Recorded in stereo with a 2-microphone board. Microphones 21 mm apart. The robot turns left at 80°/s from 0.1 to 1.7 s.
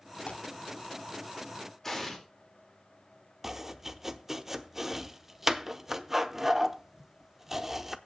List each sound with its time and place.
0.2 s tearing paper: 60° left (ahead or behind), 2.5 m; by 0.4 s 75° left (ahead or behind), 2.5 m
1.8 s an explosion: 15° left (ahead or behind), 2 m
3.4 s chopping: 15° right (ahead or behind), 0.7 m